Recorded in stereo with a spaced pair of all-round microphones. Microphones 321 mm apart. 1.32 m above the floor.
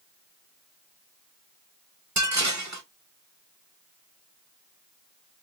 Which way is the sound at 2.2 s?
60° right (ahead or behind).